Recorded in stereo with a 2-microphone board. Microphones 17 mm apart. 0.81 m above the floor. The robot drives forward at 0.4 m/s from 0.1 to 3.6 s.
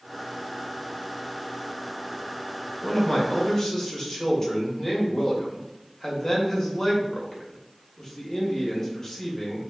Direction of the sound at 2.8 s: 35° left (ahead or behind).